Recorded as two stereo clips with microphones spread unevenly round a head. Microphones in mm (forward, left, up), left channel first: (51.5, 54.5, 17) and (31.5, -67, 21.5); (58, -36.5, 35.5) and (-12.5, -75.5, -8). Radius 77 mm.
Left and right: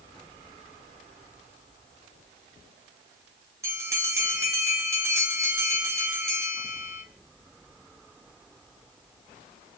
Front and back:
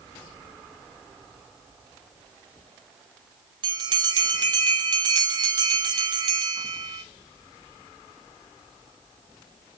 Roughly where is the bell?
Behind.